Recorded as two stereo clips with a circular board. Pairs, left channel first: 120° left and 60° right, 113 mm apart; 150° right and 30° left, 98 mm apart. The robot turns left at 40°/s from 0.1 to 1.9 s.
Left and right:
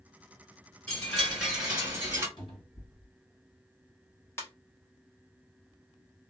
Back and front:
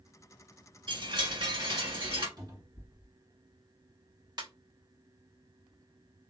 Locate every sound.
0.9 s a chime: 50° left, 1.5 m; by 2.3 s 10° left, 1.5 m
2.4 s a cupboard door: 75° left, 1.8 m
4.4 s a ringtone: 60° left, 1.1 m